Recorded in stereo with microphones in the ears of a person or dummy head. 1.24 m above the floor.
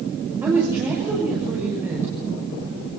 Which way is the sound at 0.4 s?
20° right (ahead or behind).